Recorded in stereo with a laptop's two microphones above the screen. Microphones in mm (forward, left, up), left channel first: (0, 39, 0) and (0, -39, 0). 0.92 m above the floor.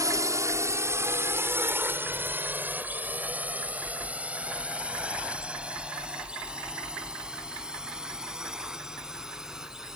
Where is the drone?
45° right (ahead or behind); by 10.0 s 5° right (ahead or behind).